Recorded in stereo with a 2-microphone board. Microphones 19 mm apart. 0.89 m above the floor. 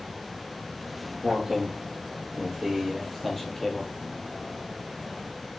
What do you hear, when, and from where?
0.8 s footsteps: 15° right (ahead or behind), 2.5 m; by 5.4 s 50° left (ahead or behind), 1.5 m